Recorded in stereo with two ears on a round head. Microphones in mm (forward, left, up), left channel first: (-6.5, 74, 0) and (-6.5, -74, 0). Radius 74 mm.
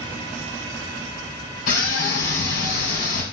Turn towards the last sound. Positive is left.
turn(degrees=65)  # may be behind; listen again after turning